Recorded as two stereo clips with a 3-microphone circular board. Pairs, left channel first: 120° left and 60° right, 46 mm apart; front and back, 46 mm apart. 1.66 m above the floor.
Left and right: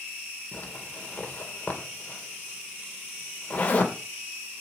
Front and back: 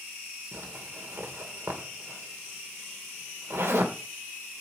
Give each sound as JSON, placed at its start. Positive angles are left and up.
{"t": 0.5, "sound": "a zipper", "azimuth_deg": 180, "distance_m": 1.8}